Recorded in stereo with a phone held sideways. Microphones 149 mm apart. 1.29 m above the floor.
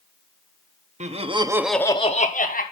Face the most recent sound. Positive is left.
turn(degrees=65)  # may be behind; listen again after turning